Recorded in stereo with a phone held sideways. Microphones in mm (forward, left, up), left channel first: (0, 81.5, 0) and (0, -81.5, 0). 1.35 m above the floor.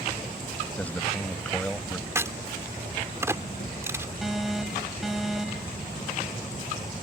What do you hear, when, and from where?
0.8 s a man speaking: 10° left (ahead or behind)
2.1 s a crack: 15° right (ahead or behind)
4.2 s an alarm: centre (ahead or behind)